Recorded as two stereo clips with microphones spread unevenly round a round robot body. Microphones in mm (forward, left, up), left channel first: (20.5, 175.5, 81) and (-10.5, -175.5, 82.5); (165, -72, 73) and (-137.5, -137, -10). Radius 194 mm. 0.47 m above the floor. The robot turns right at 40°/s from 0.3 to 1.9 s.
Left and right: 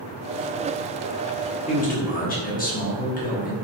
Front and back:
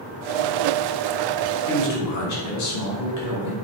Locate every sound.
1.7 s a man speaking: 25° left, 1.7 m; by 3.5 s 30° left, 1.7 m